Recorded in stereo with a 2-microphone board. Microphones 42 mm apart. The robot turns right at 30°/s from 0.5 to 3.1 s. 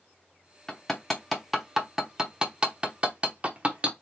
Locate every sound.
0.7 s hammering: 15° left (ahead or behind), 0.9 m; by 3.9 s 25° right (ahead or behind), 0.9 m